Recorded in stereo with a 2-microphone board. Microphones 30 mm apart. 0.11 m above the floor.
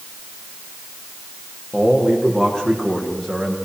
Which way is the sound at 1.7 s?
30° left (ahead or behind).